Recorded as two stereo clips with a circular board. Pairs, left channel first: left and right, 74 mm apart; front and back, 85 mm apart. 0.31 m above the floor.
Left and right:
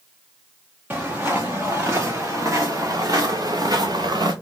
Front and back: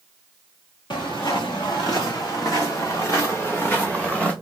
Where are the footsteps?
25° right, 2.5 m; by 4.3 s 80° right, 1.5 m.